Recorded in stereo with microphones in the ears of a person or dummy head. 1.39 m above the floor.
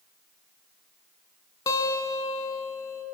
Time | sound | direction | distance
1.7 | a guitar | 25° left (ahead or behind) | 2.5 m